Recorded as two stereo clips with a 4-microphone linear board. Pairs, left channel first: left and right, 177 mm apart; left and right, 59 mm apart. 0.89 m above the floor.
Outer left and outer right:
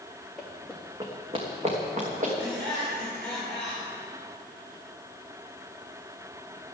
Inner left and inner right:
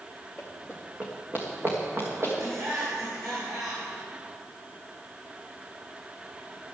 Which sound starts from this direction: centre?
Running footsteps, at 0.4 s.